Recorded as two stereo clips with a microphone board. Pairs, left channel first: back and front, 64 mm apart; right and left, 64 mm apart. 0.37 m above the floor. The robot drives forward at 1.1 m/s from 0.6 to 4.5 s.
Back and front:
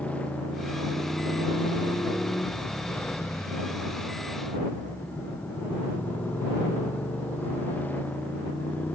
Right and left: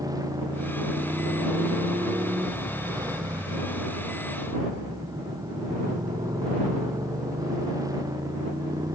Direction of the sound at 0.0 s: 110° left.